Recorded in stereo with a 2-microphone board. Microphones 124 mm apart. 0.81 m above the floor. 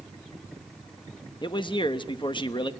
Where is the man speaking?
40° left (ahead or behind), 0.9 m.